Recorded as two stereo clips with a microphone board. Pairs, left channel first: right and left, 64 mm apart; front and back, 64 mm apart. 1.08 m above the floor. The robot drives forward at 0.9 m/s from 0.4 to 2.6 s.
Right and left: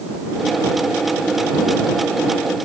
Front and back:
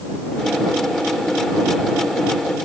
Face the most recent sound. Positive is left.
No sound to turn to.